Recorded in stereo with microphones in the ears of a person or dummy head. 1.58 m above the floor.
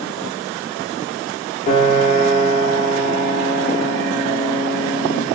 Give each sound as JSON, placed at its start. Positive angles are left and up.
{"t": 1.7, "sound": "a piano", "side_deg": 45, "distance_m": 2.0}